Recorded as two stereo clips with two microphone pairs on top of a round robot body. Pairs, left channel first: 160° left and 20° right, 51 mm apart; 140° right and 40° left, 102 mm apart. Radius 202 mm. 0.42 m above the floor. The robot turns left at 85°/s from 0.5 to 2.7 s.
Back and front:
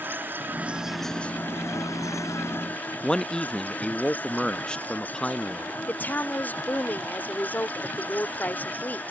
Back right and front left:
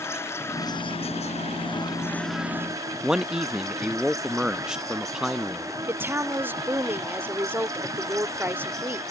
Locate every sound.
0.0 s an insect: 70° right; by 9.1 s 100° left
3.0 s a man speaking: 110° left
5.9 s a woman speaking: 110° left